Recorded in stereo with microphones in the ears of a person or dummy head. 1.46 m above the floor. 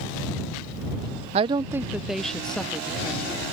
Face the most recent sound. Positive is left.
turn(degrees=5)  # may be behind; listen again after turning